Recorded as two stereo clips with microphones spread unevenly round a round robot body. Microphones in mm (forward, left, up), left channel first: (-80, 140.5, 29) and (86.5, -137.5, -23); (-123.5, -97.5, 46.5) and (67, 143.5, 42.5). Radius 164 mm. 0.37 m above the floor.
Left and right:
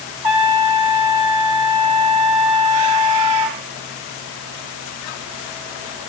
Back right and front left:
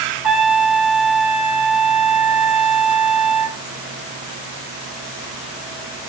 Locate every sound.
0.2 s a trumpet: 35° right, 1.6 m